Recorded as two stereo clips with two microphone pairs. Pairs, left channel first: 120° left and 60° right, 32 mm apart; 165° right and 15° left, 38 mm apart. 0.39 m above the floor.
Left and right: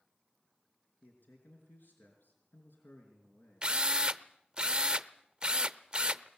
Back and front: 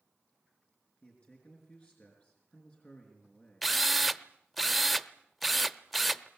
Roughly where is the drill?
Right.